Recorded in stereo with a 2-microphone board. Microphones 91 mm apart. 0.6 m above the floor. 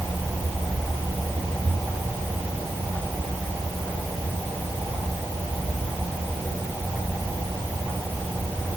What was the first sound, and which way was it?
Only background noise.